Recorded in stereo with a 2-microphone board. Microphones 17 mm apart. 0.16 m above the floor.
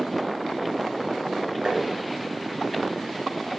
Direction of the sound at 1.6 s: 45° right (ahead or behind).